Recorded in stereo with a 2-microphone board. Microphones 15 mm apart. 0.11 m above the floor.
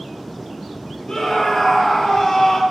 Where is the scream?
60° left (ahead or behind), 2.5 m; by 2.6 s 50° left (ahead or behind), 2 m.